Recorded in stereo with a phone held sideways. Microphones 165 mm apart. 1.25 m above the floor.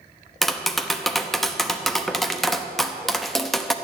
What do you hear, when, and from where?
0.4 s tapping: centre (ahead or behind), 0.8 m